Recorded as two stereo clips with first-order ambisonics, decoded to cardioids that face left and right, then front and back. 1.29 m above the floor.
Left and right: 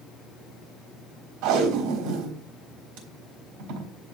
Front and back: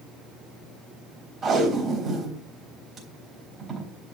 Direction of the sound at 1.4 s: 105° right.